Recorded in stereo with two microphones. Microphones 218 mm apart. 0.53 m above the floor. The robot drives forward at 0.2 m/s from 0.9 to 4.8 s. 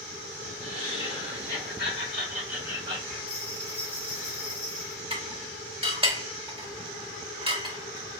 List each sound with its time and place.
0.6 s laughter: 50° right (ahead or behind), 1.6 m; by 3.2 s 40° right (ahead or behind), 1.9 m
3.3 s a bell: 25° right (ahead or behind), 1.6 m
5.1 s dishes clattering: 25° right (ahead or behind), 1.1 m